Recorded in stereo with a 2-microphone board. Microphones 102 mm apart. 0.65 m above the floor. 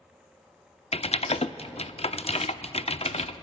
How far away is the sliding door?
I don't hear a sliding door.